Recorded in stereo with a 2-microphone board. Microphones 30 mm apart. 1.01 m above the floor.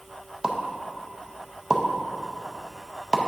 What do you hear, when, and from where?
0.4 s a pop: 25° right (ahead or behind), 0.6 m